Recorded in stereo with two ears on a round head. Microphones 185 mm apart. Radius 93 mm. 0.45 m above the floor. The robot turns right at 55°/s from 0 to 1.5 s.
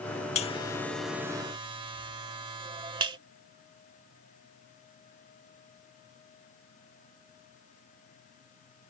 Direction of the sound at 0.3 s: 35° left (ahead or behind).